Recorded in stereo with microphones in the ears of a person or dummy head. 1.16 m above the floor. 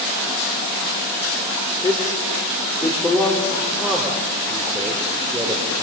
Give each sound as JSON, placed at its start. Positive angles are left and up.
{"t": 1.8, "sound": "a man speaking", "side_deg": 20, "distance_m": 3.5}